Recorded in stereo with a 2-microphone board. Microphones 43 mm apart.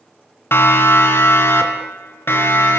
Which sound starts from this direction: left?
A siren, at 0.5 s.